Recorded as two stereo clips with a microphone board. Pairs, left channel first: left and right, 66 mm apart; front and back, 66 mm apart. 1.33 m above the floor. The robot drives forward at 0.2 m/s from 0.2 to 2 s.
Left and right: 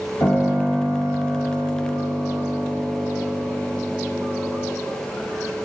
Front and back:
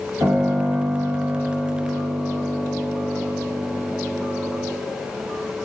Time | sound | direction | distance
0.2 | a piano | 135° left | 5 m